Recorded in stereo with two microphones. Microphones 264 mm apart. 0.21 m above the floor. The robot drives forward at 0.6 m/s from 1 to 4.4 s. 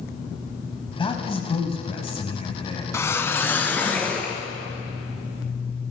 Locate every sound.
1.0 s a man speaking: 20° left (ahead or behind), 1.3 m
2.9 s a whoosh: 10° left (ahead or behind), 0.6 m; by 4.4 s 5° left (ahead or behind), 1.4 m